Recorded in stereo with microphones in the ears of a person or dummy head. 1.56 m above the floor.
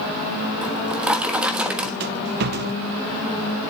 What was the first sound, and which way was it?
A drawer, 5° right (ahead or behind).